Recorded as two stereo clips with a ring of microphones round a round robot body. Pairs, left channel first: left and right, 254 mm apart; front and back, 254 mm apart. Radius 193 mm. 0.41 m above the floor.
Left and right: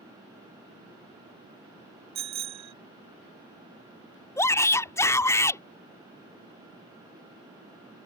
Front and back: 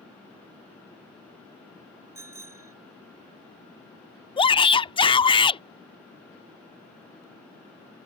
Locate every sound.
2.1 s a bicycle bell: 100° right
4.4 s a shout: 30° left